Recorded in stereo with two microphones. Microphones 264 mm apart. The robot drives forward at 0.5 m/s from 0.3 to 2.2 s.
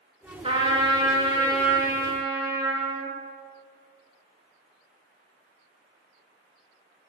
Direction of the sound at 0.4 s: 20° right (ahead or behind).